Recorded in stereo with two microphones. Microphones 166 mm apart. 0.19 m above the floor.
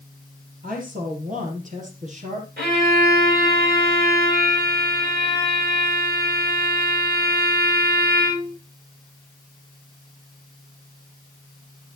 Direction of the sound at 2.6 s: 80° right.